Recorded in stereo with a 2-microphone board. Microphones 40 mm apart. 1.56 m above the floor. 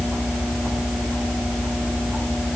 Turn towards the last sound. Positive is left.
No sound to turn to.